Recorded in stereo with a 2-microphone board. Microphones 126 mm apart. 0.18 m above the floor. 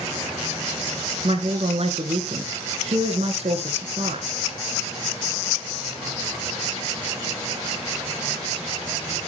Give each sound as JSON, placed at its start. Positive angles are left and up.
{"t": 1.2, "sound": "a woman speaking", "side_deg": -55, "distance_m": 2.5}